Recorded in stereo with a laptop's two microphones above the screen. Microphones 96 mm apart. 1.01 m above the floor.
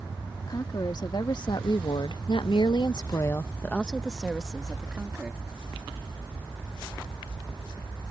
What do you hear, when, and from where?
0.5 s a woman speaking: 45° left (ahead or behind); by 5.5 s 10° right (ahead or behind)